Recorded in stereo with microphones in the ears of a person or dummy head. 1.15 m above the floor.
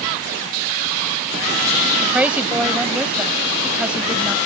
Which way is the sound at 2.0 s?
Centre (ahead or behind).